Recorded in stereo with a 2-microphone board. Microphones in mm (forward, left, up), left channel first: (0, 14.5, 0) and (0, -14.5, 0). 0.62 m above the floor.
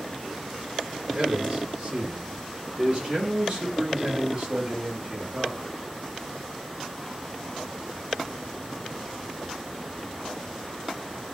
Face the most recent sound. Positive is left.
turn(degrees=-25)  # may be behind; listen again after turning